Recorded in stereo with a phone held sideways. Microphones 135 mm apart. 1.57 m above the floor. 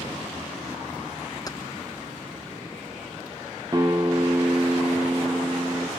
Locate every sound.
1.5 s keys jangling: 30° left (ahead or behind), 0.7 m
3.7 s a guitar: 25° right (ahead or behind), 1.4 m